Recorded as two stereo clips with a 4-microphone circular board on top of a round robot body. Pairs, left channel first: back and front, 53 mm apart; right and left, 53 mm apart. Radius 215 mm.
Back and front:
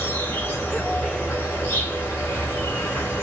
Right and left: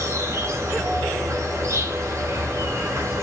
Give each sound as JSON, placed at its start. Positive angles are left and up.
{"t": 0.0, "sound": "an insect", "azimuth_deg": 125, "distance_m": 1.0}